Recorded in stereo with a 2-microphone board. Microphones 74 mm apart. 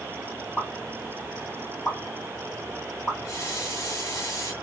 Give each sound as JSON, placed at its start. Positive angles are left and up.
{"t": 0.6, "sound": "a pop", "side_deg": 20, "distance_m": 2.5}
{"t": 3.2, "sound": "a running tap", "side_deg": 45, "distance_m": 1.7}